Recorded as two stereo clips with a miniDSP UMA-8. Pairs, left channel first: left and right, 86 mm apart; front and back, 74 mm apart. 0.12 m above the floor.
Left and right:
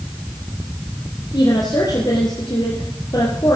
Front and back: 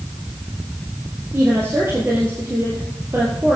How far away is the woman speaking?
About 2.5 m.